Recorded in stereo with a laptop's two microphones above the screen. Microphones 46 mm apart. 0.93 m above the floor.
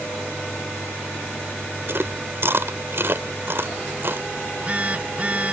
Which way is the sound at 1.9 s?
55° right (ahead or behind).